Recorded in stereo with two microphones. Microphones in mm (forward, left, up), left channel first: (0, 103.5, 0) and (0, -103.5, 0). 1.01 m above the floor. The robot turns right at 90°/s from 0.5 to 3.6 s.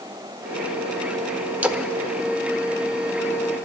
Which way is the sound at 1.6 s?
10° right (ahead or behind).